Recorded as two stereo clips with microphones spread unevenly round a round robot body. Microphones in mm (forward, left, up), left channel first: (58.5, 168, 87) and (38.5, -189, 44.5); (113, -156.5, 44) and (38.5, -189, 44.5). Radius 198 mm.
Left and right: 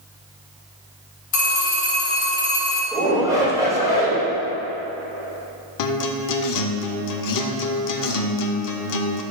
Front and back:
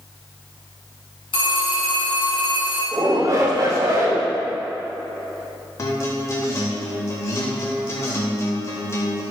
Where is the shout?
165° right, 1.9 m.